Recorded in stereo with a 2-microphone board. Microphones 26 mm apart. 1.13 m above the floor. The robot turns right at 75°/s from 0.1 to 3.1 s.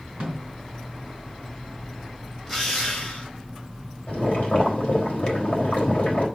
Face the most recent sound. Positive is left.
turn(degrees=85)